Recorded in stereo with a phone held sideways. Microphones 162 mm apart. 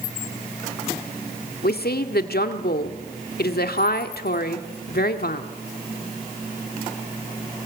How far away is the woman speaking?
About 1.8 m.